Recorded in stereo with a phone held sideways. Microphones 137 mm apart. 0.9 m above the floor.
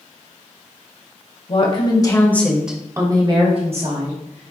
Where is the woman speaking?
45° left (ahead or behind), 1.3 m; by 4.5 s 65° right (ahead or behind), 1.9 m.